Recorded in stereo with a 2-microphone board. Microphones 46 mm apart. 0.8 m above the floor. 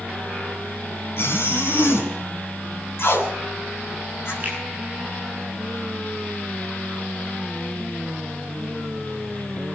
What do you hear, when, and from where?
1.2 s a zipper: 60° left (ahead or behind), 5 m
3.0 s tape being pulled: 60° left (ahead or behind), 4.5 m
4.4 s a finger snap: 35° right (ahead or behind), 9.5 m